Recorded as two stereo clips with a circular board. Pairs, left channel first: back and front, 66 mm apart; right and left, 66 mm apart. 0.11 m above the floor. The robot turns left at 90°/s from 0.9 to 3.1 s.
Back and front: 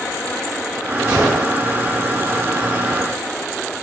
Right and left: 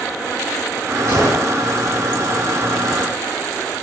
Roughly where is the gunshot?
Ahead left.